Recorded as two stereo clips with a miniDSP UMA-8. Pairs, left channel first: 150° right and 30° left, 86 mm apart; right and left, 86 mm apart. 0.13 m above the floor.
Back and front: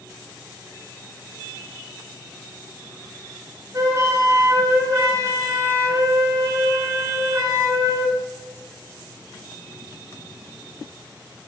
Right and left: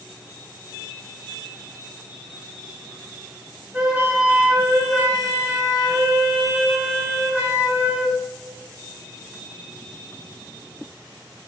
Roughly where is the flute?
Ahead.